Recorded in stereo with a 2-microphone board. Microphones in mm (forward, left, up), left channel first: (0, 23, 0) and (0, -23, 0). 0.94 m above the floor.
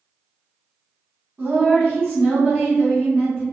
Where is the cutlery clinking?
No cutlery clinking in this recording.